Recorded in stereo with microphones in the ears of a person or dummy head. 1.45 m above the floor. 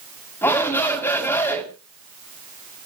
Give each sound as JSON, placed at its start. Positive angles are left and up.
{"t": 0.4, "sound": "a shout", "side_deg": 20, "distance_m": 4.5}